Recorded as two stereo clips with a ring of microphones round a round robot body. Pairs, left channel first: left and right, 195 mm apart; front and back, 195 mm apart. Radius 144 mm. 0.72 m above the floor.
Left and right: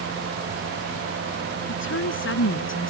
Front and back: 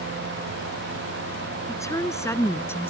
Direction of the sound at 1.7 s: 75° left.